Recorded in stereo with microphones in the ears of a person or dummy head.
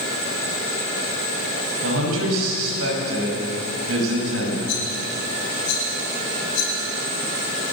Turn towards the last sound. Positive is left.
turn(degrees=80)